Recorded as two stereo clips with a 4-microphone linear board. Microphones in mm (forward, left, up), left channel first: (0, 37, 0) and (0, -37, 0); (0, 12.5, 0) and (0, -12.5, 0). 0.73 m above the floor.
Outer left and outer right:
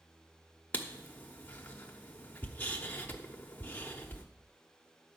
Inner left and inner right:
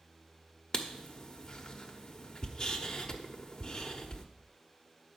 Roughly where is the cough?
No cough in this recording.